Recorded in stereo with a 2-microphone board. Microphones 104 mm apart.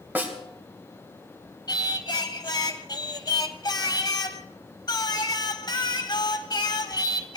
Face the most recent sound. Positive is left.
turn(degrees=40)  # may be behind; listen again after turning